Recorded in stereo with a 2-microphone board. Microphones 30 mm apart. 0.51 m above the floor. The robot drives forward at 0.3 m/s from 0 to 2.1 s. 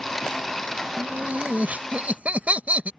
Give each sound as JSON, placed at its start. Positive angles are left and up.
{"t": 1.0, "sound": "laughter", "side_deg": -60}